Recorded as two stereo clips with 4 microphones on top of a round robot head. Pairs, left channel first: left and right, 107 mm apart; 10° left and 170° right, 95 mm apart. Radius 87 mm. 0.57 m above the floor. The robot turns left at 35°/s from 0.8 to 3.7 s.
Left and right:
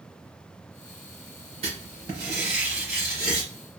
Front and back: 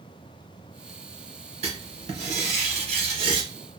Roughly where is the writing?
Behind right.